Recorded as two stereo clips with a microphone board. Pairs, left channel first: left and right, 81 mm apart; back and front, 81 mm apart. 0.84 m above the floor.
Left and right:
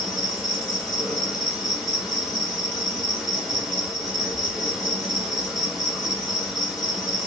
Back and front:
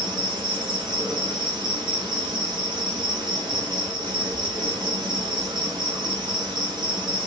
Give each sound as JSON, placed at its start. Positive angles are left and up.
{"t": 0.0, "sound": "an insect", "azimuth_deg": 0, "distance_m": 1.5}